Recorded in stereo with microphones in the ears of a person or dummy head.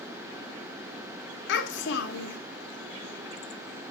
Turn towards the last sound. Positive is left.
turn(degrees=65)  # may be behind; listen again after turning